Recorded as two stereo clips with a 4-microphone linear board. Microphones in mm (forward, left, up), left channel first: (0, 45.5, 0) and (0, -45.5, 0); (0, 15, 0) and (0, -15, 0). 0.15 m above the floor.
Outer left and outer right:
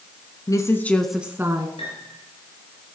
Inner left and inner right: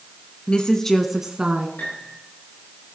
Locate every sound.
0.5 s a woman speaking: 40° left (ahead or behind), 1.5 m; by 1.7 s 35° right (ahead or behind), 1.6 m
1.8 s a piano: 85° left, 9.5 m